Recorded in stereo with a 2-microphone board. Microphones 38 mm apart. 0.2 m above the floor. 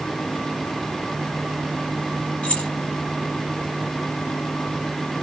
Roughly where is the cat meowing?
No cat meowing in this recording.